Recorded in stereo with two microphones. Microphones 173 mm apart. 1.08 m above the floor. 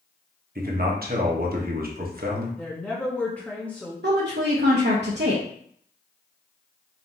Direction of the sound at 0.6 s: 60° right (ahead or behind).